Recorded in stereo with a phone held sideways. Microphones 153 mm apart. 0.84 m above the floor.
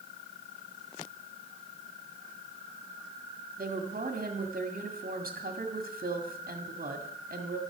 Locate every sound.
3.6 s a woman speaking: 65° right (ahead or behind), 2.0 m